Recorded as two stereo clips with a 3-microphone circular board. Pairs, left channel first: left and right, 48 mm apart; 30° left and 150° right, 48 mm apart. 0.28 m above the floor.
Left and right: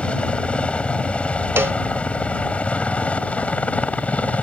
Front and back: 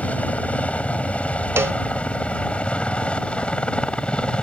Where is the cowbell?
125° right.